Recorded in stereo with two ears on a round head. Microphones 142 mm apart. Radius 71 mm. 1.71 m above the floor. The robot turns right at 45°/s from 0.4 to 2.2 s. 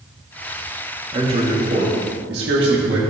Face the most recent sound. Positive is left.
turn(degrees=-100)